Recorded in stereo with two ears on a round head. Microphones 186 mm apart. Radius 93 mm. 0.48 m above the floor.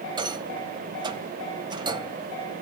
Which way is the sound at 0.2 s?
20° right (ahead or behind).